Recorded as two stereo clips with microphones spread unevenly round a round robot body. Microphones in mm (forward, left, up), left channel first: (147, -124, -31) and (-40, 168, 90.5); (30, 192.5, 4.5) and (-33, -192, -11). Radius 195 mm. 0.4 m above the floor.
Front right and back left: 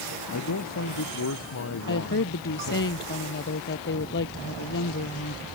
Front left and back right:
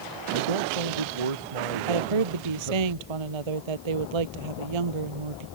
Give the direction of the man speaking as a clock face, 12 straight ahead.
4 o'clock.